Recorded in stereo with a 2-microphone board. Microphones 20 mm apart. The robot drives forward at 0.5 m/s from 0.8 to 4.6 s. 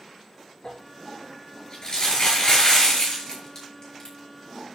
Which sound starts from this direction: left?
Crumpling, at 0.6 s.